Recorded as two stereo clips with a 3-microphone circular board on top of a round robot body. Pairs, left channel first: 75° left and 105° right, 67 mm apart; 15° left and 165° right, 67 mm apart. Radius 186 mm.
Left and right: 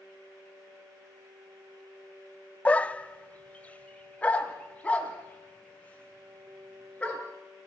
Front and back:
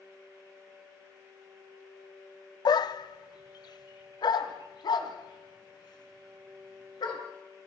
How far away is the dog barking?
About 0.6 m.